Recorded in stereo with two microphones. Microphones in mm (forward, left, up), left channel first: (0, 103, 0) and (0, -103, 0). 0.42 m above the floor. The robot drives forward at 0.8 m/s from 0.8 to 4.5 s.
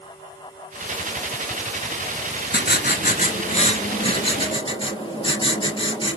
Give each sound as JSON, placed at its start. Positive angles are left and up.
{"t": 2.5, "sound": "writing", "side_deg": 60, "distance_m": 1.2}